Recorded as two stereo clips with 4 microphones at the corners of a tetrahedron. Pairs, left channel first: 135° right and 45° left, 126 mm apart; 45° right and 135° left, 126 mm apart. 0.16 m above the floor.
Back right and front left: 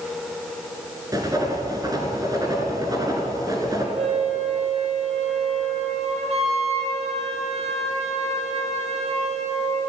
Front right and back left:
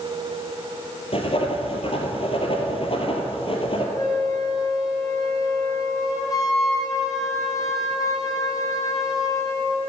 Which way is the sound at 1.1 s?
10° right.